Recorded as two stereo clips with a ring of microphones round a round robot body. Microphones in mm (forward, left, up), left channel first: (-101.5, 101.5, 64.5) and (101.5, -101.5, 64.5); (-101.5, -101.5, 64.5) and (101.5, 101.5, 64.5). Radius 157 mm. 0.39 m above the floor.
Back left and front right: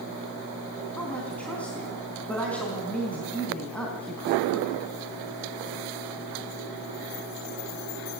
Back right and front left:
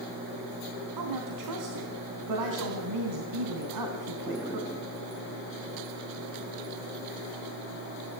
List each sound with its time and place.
1.0 s a woman speaking: 50° left, 4 m